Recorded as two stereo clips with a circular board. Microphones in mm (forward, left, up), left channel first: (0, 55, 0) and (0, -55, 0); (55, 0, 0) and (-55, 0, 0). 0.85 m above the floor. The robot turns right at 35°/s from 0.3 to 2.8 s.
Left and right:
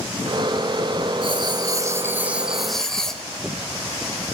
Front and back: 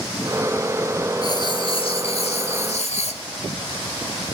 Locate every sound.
1.2 s writing: 50° right, 1.4 m; by 3.2 s 5° left, 1.4 m